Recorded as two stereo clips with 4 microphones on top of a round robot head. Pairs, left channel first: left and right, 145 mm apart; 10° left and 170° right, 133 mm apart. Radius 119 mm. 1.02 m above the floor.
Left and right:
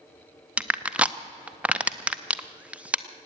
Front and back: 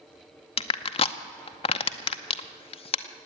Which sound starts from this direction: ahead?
Crushing, at 0.6 s.